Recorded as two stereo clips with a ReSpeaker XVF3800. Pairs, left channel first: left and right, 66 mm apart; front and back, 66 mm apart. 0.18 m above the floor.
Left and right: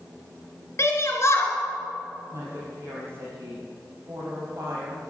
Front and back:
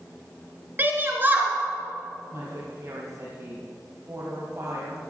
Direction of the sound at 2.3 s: 135° right.